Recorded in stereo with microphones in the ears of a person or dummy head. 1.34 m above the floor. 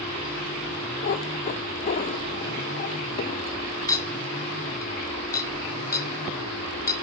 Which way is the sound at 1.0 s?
30° left (ahead or behind).